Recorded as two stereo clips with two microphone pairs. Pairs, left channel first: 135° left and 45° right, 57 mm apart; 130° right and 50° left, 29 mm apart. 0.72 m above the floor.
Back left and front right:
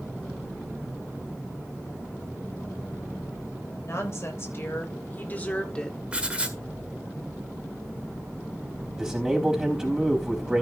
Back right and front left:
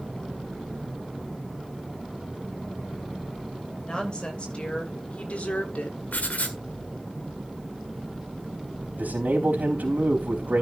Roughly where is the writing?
Behind right.